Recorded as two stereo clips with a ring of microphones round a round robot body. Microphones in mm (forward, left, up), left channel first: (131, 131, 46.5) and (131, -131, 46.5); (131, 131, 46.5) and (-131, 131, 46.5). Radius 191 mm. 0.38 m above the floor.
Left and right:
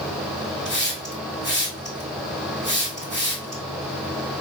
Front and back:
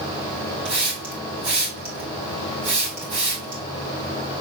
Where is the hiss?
170° right, 2.5 m.